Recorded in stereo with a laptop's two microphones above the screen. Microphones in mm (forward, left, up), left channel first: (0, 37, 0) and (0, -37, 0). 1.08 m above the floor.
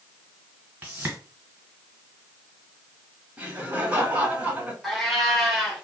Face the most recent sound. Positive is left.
turn(degrees=0)  # may be behind; listen again after turning